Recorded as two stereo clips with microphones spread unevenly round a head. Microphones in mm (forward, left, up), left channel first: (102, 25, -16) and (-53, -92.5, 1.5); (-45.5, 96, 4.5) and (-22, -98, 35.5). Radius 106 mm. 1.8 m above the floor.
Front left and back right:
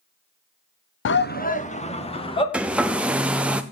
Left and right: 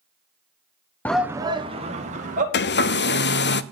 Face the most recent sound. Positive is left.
turn(degrees=130)